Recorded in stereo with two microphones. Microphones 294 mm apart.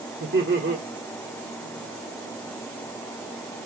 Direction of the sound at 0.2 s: 40° right (ahead or behind).